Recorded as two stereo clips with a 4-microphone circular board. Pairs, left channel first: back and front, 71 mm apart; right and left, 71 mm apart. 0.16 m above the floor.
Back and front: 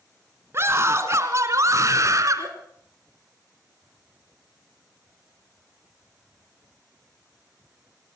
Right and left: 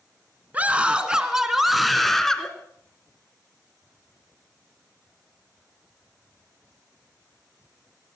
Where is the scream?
30° left, 2 m; by 2.5 s 10° right, 2.5 m.